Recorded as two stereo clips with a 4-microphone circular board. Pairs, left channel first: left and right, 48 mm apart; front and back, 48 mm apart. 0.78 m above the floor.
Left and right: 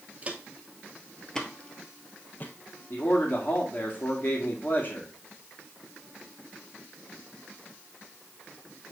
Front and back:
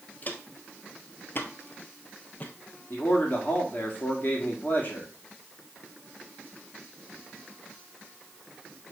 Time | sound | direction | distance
0.2 | footsteps | 35° right | 1.1 m
2.9 | a man speaking | 45° left | 1.8 m